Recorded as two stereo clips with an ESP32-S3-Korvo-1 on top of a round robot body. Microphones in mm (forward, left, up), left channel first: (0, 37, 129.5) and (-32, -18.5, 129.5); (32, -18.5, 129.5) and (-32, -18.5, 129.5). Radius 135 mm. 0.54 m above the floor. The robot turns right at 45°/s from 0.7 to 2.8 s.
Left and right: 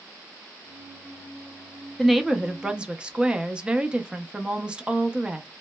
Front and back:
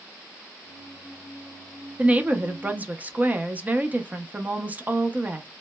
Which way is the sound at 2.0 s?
150° left.